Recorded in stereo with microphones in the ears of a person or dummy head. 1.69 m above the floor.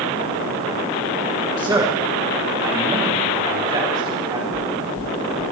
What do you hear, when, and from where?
1.6 s a man speaking: 20° right (ahead or behind), 1.1 m; by 4.4 s 30° right (ahead or behind), 4.5 m
4.5 s knocking: 60° right (ahead or behind), 1.6 m